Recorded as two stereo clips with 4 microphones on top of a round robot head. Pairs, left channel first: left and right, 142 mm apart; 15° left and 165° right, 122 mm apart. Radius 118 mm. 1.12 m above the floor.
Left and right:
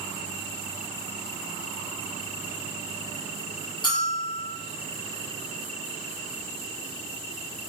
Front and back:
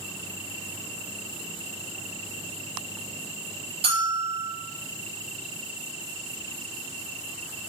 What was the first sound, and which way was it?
A bell, 155° left.